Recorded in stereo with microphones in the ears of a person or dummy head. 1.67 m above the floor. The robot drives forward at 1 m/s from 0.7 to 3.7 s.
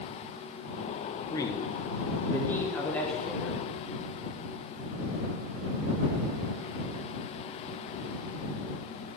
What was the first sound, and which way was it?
A man speaking, 25° left (ahead or behind).